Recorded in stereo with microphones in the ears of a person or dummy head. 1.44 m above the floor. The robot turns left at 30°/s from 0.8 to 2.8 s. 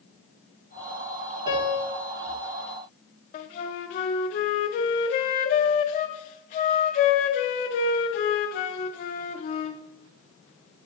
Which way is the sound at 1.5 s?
25° right (ahead or behind).